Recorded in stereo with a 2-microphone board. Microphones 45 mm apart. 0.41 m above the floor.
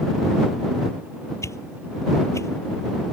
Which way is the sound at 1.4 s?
85° left.